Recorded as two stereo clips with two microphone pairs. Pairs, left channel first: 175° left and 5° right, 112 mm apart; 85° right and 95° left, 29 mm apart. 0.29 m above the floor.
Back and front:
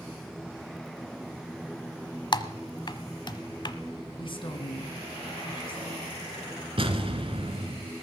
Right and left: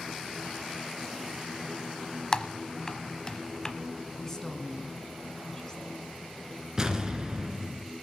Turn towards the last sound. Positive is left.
turn(degrees=20)